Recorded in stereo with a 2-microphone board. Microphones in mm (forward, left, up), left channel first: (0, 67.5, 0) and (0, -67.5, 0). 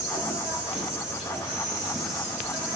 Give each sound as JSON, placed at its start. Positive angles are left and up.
{"t": 0.0, "sound": "an insect", "side_deg": -10, "distance_m": 0.8}